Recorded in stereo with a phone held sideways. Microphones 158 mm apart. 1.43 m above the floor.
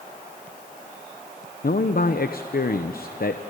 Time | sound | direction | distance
1.6 | a man speaking | 70° left (ahead or behind) | 1.0 m